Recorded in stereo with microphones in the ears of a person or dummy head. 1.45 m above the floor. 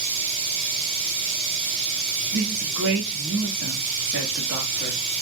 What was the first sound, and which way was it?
Running water, 30° right (ahead or behind).